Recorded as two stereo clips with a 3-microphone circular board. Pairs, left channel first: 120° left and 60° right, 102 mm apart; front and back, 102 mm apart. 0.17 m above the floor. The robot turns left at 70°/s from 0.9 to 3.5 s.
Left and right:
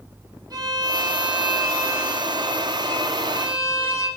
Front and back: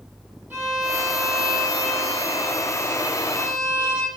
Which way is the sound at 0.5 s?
110° right.